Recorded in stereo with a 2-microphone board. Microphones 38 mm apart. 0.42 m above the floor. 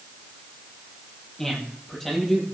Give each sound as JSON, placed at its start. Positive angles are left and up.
{"t": 1.4, "sound": "a man speaking", "side_deg": 10, "distance_m": 10.0}